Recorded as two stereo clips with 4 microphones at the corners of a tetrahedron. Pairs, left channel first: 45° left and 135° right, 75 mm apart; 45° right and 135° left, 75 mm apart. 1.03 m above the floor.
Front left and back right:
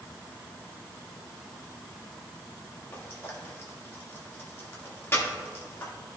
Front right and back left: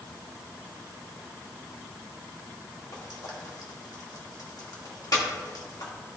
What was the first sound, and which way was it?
Frying, 10° right.